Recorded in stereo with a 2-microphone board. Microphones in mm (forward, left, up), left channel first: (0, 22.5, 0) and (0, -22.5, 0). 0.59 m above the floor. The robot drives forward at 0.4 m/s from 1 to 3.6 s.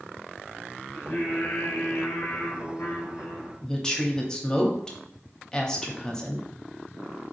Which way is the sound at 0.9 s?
45° left (ahead or behind).